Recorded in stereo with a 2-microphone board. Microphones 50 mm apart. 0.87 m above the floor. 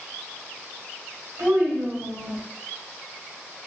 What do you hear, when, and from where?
1.4 s a child speaking: 65° right (ahead or behind), 1.5 m; by 2.4 s 50° right (ahead or behind), 0.8 m